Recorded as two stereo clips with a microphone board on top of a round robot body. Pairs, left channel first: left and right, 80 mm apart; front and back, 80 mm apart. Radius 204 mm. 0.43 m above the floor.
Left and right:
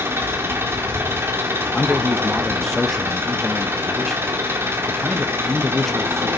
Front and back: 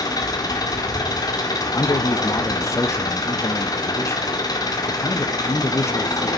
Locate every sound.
0.0 s an engine running: 35° right, 1.7 m
1.7 s a man speaking: 5° left, 0.8 m